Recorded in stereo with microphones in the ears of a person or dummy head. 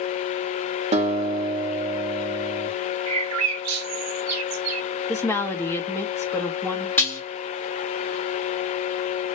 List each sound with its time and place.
0.9 s a guitar: 25° right (ahead or behind), 0.7 m
3.1 s a bird: 75° right (ahead or behind), 0.6 m
5.1 s a woman speaking: 15° left (ahead or behind), 0.7 m
7.0 s dishes clattering: 10° left (ahead or behind), 1.1 m